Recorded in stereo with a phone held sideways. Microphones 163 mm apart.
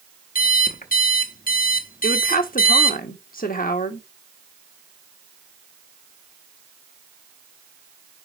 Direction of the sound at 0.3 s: 60° left (ahead or behind).